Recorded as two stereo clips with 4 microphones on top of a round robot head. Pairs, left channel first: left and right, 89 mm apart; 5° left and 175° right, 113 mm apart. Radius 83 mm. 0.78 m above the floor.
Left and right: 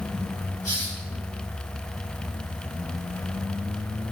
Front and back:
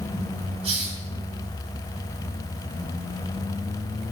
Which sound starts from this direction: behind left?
A hiss, at 0.6 s.